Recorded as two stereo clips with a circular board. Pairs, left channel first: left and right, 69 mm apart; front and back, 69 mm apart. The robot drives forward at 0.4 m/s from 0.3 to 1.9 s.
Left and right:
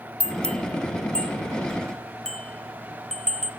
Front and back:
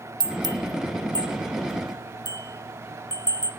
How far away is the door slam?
No door slam in this recording.